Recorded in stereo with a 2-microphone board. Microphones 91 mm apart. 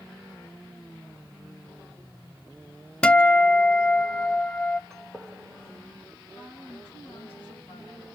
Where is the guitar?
10° left (ahead or behind), 0.5 m.